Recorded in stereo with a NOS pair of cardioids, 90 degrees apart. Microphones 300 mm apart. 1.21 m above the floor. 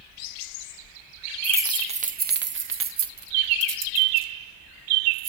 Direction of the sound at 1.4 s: 5° right.